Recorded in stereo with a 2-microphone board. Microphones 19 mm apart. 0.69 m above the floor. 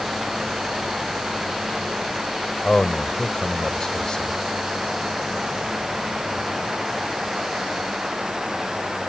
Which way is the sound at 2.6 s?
45° left (ahead or behind).